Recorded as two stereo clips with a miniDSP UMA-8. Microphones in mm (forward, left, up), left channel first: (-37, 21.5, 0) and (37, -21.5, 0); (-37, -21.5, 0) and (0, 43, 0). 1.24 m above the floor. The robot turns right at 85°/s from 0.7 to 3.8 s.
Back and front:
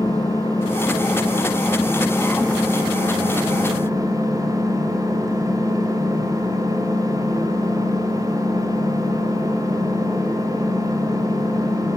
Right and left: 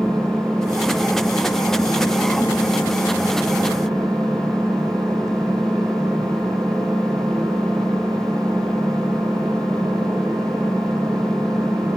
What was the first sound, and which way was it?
An engine running, 115° left.